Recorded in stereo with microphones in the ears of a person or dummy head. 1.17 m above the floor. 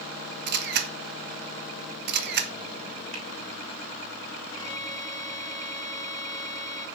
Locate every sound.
0.5 s a camera shutter: 50° right (ahead or behind), 1.5 m
3.1 s a finger snap: 35° right (ahead or behind), 4.5 m
4.5 s a violin: 25° left (ahead or behind), 2.5 m